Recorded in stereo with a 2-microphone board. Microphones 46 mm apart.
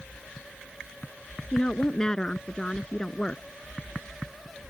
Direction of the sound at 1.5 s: 15° left (ahead or behind).